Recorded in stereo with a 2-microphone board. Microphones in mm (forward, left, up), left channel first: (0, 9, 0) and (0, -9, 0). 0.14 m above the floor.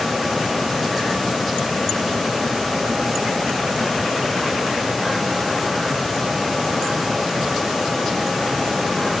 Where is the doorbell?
I don't hear a doorbell.